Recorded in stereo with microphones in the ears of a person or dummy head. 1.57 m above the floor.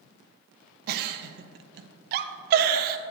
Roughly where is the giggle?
Right.